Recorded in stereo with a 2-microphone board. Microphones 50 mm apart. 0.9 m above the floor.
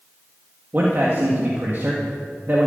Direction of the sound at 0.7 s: 45° right (ahead or behind).